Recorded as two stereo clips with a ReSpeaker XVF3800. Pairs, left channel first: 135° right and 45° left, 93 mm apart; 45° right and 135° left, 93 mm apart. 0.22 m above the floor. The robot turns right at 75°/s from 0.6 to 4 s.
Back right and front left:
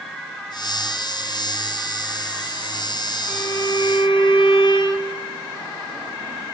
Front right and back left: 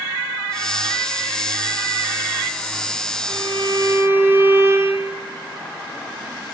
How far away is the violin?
About 1.2 m.